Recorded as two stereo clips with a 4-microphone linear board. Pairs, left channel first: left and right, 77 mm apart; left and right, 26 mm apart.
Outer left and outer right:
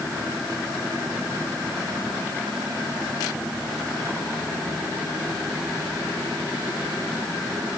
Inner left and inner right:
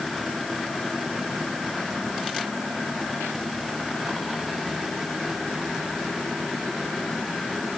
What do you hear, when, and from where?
Only background noise.